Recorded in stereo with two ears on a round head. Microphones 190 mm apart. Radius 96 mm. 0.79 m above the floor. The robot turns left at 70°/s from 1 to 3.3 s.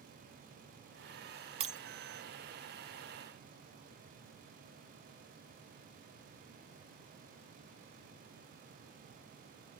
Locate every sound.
1.6 s breaking glass: 25° right (ahead or behind), 0.9 m; by 1.8 s 40° right (ahead or behind), 0.9 m